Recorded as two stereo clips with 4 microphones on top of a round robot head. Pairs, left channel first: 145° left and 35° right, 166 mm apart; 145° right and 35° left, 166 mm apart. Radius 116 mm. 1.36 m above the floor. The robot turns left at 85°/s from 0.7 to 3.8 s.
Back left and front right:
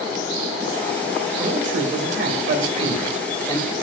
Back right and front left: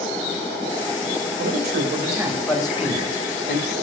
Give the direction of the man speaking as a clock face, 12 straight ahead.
11 o'clock.